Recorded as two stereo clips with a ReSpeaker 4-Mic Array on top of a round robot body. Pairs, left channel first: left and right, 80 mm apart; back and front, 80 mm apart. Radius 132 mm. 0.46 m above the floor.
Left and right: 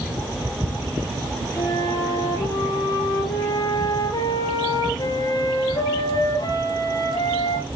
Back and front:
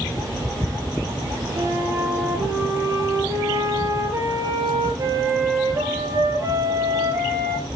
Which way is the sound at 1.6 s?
50° left.